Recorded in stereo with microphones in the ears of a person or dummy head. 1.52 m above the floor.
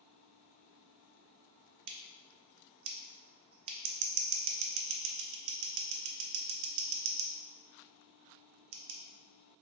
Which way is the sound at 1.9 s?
65° right (ahead or behind).